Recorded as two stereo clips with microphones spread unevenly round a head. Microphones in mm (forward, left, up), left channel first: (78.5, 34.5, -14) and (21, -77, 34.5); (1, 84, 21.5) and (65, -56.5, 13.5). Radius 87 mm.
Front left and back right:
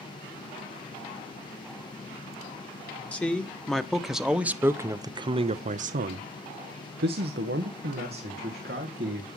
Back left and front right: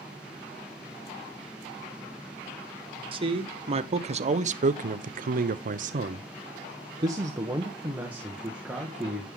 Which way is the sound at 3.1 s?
10° right.